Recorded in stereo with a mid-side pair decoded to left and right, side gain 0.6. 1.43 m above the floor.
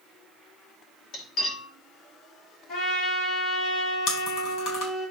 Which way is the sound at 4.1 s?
60° left.